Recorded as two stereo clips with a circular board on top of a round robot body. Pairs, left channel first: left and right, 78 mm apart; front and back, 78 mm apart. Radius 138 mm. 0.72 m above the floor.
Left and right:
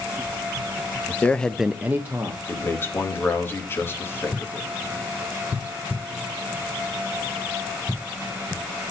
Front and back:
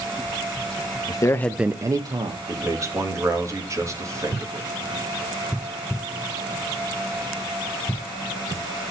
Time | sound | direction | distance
1.1 | a man speaking | 25° left | 0.9 m
2.5 | a man speaking | 145° left | 1.8 m